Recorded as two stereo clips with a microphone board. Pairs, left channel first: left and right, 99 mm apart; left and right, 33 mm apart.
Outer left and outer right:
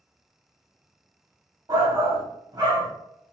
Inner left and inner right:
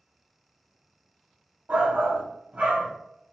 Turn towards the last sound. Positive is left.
turn(degrees=-40)  # may be behind; listen again after turning